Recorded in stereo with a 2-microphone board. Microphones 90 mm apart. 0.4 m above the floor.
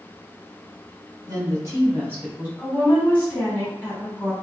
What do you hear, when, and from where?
1.3 s a woman speaking: 45° right (ahead or behind), 1.4 m; by 2.5 s 15° right (ahead or behind), 1.6 m
2.6 s a woman speaking: 20° left (ahead or behind), 1.3 m